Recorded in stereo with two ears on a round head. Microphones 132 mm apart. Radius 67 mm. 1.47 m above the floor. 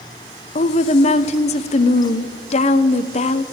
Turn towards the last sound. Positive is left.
turn(degrees=45)  # may be behind; listen again after turning